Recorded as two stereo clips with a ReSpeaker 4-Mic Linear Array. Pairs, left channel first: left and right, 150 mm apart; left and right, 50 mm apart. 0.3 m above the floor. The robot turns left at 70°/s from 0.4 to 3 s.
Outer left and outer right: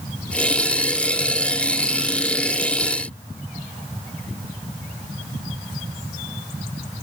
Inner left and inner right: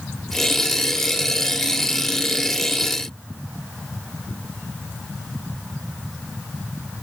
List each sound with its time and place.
Only background noise.